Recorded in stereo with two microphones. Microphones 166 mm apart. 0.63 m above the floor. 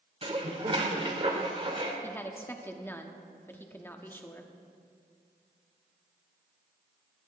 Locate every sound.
0.2 s dishes clattering: 35° right (ahead or behind), 1.3 m
2.0 s a woman speaking: 15° left (ahead or behind), 1.0 m